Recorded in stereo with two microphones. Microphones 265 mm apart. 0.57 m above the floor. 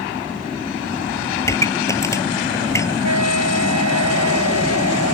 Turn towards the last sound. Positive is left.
turn(degrees=-85)